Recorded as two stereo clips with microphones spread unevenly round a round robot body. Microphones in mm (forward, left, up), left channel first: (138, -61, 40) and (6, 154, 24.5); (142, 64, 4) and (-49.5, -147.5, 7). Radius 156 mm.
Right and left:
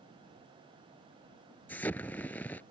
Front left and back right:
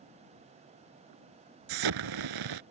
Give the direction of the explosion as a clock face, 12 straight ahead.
5 o'clock.